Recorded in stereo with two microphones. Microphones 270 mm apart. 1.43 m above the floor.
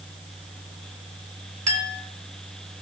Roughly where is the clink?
Right.